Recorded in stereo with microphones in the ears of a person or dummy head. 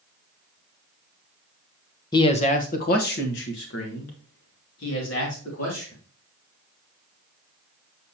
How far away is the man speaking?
About 0.9 m.